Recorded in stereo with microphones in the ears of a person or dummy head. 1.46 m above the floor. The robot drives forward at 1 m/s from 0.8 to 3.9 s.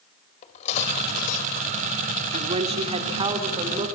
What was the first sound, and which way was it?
Cutlery clinking, 40° left (ahead or behind).